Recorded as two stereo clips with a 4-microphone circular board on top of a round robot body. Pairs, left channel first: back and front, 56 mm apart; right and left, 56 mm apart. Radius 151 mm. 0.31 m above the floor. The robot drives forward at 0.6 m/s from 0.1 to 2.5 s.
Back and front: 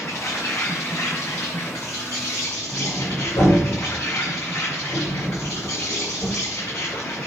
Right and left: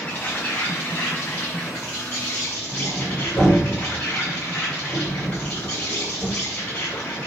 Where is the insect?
150° right, 5.5 m; by 7.3 s 155° right, 7 m.